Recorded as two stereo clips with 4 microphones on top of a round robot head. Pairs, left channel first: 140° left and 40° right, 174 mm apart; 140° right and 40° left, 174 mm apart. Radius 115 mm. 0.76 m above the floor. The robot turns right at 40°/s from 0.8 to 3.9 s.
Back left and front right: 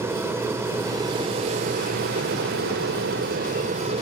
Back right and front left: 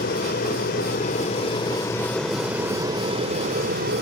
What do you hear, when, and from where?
0.0 s an aircraft: 115° right; by 4.0 s 10° left